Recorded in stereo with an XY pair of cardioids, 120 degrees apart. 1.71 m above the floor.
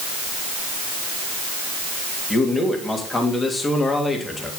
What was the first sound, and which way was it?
A man speaking, 25° left.